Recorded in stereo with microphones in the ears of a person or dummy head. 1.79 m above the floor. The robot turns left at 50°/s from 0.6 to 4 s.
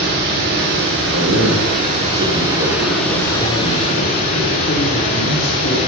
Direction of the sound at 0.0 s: 60° right.